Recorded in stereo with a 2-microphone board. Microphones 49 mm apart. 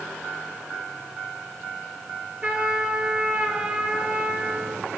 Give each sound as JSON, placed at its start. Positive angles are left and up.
{"t": 2.4, "sound": "a trumpet", "side_deg": -25, "distance_m": 1.5}